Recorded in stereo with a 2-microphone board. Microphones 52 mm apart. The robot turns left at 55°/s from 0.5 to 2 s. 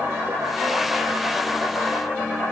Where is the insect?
130° right, 6 m; by 2.5 s 145° left, 6 m.